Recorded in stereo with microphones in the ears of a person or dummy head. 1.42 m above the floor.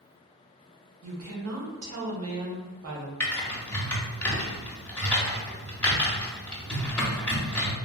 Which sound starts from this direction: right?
A woman speaking, at 1.0 s.